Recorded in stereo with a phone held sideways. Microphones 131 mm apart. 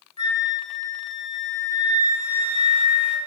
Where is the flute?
55° right (ahead or behind), 0.9 m.